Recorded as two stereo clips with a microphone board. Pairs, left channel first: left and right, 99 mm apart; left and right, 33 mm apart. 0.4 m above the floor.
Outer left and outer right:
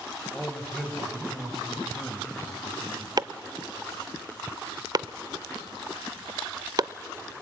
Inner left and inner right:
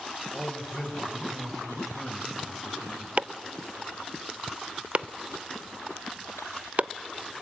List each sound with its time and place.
0.3 s a man speaking: centre (ahead or behind), 2.5 m
3.2 s chopping: 45° right (ahead or behind), 0.5 m